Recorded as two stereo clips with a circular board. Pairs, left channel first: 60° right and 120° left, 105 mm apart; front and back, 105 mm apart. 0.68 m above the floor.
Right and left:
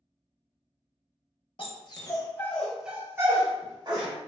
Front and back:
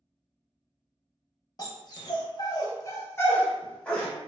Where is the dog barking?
45° right, 0.7 m; by 4.1 s 85° left, 0.9 m.